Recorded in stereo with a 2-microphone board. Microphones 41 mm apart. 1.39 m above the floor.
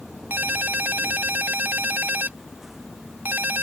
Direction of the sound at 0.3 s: 50° right (ahead or behind).